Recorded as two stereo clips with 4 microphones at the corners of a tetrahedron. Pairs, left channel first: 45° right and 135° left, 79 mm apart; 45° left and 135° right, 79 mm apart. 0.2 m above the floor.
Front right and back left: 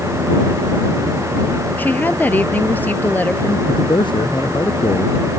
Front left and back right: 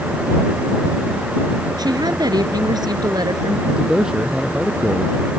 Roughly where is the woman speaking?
Right.